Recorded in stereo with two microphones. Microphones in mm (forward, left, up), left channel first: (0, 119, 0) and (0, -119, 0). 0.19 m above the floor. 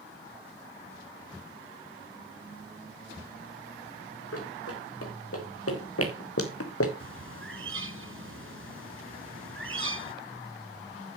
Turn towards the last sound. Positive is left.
turn(degrees=-60)  # may be behind; listen again after turning